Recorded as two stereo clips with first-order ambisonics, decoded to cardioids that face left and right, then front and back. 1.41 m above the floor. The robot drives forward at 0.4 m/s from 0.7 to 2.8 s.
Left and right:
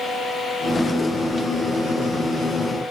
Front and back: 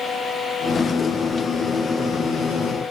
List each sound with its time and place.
Only background noise.